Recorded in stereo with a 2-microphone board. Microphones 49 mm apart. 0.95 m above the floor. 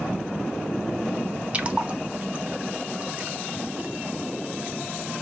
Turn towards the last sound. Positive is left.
turn(degrees=-25)  # may be behind; listen again after turning